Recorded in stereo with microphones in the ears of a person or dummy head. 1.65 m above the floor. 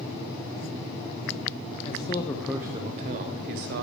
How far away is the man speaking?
About 0.6 m.